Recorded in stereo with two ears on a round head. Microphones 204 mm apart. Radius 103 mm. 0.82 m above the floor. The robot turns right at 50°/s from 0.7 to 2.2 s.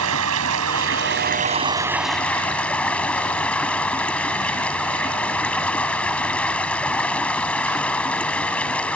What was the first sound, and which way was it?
Running water, 70° right.